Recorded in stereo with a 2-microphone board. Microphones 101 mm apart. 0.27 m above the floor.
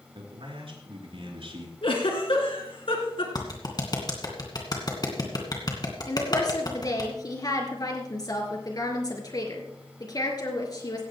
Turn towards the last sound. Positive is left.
turn(degrees=45)  # may be behind; listen again after turning